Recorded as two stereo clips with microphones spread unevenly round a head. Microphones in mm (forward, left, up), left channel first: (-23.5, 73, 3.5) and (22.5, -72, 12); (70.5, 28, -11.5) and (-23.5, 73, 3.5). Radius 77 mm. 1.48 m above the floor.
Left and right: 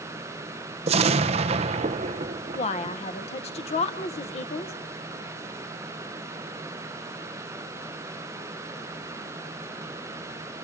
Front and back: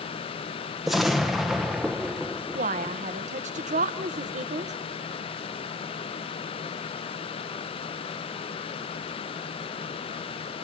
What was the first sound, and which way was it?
An explosion, 120° right.